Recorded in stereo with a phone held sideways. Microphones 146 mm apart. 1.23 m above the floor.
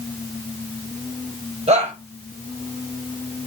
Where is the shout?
50° right (ahead or behind), 7.5 m.